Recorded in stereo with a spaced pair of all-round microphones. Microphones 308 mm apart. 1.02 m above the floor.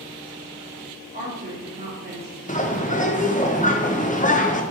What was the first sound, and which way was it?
A woman speaking, 30° right (ahead or behind).